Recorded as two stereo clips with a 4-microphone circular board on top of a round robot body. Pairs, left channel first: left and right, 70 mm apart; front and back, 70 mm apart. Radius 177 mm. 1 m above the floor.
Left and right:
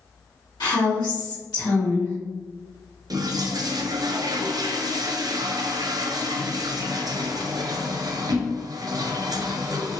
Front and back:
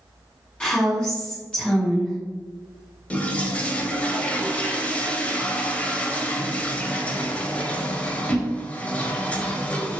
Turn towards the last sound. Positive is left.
turn(degrees=-70)